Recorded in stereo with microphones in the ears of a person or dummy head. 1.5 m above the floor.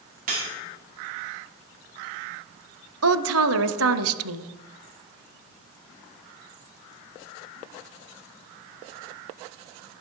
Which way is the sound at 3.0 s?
75° right (ahead or behind).